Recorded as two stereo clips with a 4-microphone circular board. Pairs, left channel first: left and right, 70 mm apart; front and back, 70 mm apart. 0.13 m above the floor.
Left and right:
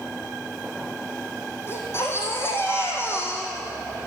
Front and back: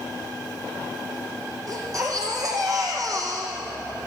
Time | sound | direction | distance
1.7 | a baby crying | 145° left | 3.5 m